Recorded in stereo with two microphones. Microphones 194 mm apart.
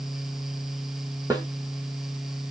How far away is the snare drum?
About 1.4 m.